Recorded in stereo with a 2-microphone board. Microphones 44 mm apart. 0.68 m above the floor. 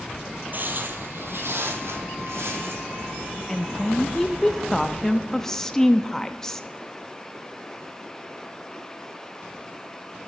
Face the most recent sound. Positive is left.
turn(degrees=10)  # may be behind; listen again after turning